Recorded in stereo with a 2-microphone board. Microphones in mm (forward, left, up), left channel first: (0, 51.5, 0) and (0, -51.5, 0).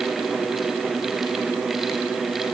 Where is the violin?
I don't hear a violin.